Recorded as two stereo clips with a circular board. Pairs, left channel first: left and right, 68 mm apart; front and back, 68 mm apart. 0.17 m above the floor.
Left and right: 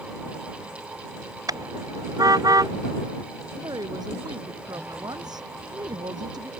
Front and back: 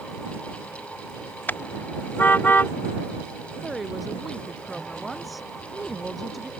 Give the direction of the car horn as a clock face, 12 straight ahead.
2 o'clock.